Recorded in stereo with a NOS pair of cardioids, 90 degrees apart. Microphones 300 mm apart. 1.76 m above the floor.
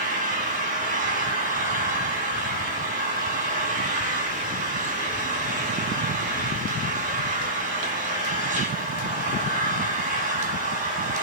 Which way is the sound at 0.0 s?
25° right.